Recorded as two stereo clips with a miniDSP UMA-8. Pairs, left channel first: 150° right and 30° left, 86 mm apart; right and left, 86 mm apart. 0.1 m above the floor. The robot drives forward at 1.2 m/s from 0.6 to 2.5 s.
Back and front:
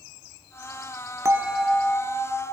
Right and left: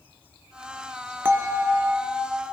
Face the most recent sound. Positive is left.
turn(degrees=165)